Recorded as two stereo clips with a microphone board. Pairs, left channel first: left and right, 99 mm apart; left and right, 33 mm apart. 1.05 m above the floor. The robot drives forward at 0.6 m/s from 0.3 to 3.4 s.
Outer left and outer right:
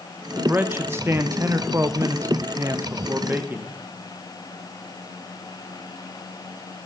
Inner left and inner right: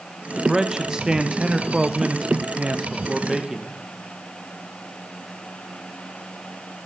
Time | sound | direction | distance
0.4 | a man speaking | 20° right (ahead or behind) | 1.3 m